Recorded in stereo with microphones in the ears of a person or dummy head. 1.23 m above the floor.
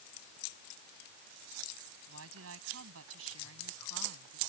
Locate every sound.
2.1 s a woman speaking: 85° right; by 4.4 s 90° right